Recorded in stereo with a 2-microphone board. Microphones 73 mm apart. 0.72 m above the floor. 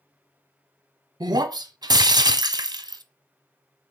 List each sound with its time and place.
1.2 s breaking glass: 70° right (ahead or behind), 0.8 m